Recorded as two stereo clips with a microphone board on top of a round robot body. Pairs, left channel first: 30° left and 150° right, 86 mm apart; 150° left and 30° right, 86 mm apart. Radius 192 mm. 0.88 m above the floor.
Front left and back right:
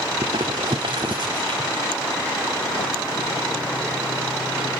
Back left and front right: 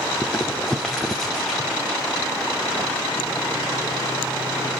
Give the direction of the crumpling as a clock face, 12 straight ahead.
4 o'clock.